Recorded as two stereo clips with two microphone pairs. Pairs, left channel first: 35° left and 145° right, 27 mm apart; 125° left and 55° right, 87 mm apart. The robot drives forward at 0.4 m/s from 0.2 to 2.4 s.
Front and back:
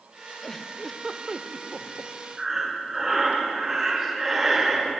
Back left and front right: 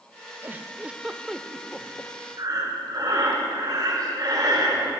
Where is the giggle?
15° right, 0.6 m; by 2.1 s 165° right, 0.7 m.